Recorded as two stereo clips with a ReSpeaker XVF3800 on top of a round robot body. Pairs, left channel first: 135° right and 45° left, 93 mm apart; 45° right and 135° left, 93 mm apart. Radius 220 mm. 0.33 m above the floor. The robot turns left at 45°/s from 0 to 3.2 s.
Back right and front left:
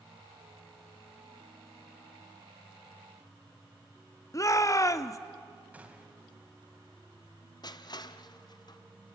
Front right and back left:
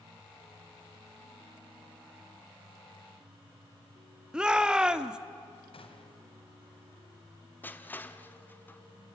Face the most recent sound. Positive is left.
turn(degrees=-110)